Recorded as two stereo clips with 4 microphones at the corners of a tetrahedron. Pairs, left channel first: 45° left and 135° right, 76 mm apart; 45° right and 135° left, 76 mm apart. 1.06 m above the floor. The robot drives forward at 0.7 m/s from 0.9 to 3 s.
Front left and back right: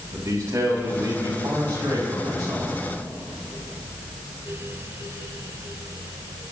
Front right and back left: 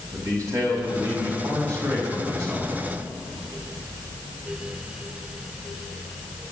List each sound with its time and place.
0.1 s a man speaking: straight behind, 5.5 m